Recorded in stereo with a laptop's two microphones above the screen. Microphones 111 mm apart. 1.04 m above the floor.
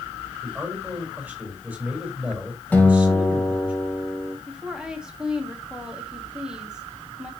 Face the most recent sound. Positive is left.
turn(degrees=-5)  # may be behind; listen again after turning